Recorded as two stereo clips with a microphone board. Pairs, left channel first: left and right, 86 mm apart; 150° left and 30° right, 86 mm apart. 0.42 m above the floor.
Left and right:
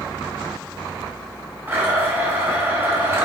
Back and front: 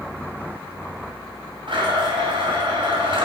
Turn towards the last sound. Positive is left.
turn(degrees=-30)